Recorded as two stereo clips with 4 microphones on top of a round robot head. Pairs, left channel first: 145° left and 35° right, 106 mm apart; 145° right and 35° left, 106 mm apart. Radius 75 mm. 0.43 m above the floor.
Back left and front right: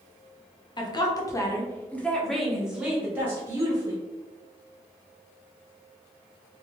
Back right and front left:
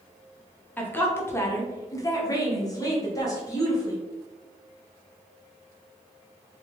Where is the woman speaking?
150° left, 1.2 m; by 4.0 s 95° right, 1.6 m.